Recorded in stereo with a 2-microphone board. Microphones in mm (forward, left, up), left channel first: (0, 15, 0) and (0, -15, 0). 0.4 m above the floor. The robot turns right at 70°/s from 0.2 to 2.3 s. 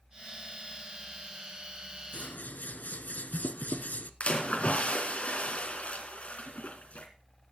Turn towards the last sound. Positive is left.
turn(degrees=50)  # may be behind; listen again after turning